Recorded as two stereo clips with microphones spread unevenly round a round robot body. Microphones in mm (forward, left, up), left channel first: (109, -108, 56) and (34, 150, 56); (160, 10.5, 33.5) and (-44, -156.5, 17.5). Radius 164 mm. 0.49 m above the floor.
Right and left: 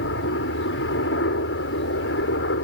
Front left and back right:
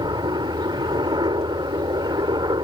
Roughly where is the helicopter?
Right.